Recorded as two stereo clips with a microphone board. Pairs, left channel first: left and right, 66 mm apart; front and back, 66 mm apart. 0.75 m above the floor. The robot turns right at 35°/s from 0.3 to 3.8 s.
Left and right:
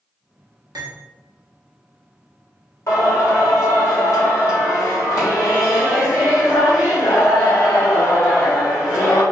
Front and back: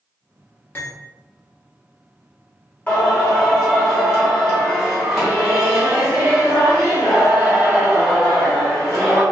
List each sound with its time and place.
0.8 s cutlery clinking: 60° right, 1.0 m; by 0.9 s 55° right, 1.0 m
2.9 s singing: 65° left, 1.4 m; by 9.2 s 100° left, 1.4 m